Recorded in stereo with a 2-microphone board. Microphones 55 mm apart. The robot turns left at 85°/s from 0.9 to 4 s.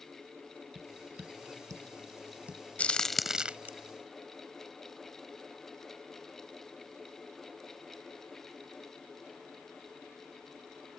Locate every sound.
0.8 s tapping: 20° right (ahead or behind); by 2.6 s 10° right (ahead or behind)
2.8 s a crack: 25° left (ahead or behind); by 3.7 s 35° right (ahead or behind)